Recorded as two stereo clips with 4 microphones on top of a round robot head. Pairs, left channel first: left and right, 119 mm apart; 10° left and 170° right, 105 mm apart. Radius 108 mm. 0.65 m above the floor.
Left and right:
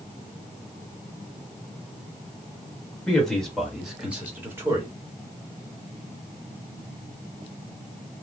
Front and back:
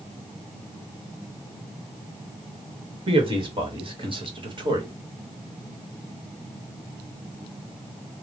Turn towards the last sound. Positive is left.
turn(degrees=-145)